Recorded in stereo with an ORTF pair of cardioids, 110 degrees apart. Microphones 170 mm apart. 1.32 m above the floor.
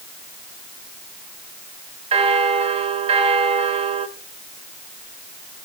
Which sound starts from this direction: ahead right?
A bell, at 2.1 s.